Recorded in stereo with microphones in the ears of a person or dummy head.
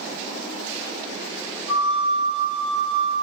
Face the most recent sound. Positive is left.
turn(degrees=-85)